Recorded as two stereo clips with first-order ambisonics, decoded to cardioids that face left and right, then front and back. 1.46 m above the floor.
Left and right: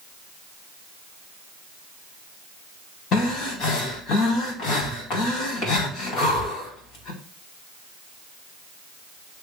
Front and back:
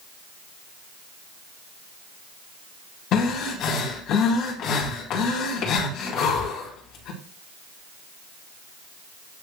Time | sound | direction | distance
3.1 | breathing | 45° left | 3 m